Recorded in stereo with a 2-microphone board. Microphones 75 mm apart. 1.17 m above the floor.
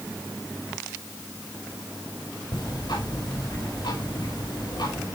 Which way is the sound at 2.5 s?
80° left.